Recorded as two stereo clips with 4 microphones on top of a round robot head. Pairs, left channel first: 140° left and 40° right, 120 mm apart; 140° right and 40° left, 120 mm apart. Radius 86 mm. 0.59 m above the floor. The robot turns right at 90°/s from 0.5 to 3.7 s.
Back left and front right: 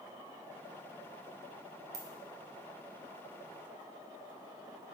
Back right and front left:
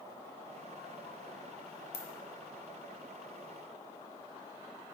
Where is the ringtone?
105° right, 1.1 m.